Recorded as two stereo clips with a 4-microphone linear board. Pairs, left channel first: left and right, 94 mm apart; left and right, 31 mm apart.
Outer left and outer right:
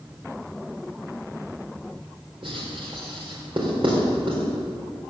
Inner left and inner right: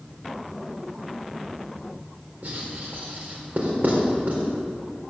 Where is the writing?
60° right (ahead or behind), 4 m.